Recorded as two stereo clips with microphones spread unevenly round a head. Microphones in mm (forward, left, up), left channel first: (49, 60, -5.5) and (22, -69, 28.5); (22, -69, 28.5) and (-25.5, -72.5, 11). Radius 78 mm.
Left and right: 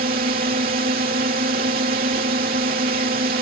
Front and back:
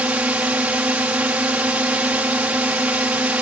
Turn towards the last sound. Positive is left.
turn(degrees=-120)